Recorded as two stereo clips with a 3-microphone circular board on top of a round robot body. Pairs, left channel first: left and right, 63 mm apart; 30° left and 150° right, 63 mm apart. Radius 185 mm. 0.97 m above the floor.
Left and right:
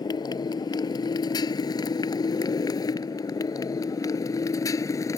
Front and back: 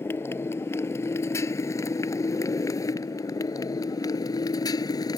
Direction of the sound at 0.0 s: 85° left.